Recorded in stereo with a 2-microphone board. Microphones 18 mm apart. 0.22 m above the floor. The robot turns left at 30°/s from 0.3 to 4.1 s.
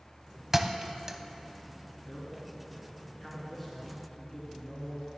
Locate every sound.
0.5 s a thud: 20° right (ahead or behind), 0.5 m; by 1.2 s 25° right (ahead or behind), 0.5 m
2.1 s a man speaking: 50° left, 3 m; by 5.1 s 10° right, 3 m